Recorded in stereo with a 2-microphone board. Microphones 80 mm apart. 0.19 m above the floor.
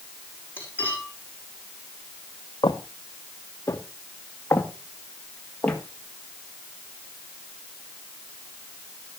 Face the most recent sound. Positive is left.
turn(degrees=15)  # may be behind; listen again after turning